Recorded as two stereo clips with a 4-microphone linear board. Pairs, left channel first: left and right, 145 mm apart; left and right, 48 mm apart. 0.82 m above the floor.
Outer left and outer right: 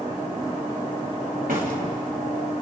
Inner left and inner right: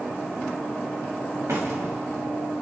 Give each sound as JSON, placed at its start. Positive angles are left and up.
{"t": 1.5, "sound": "a door slam", "side_deg": -85, "distance_m": 4.5}